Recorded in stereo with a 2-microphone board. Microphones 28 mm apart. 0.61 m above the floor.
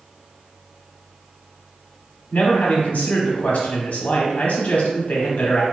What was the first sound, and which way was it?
A man speaking, 55° left (ahead or behind).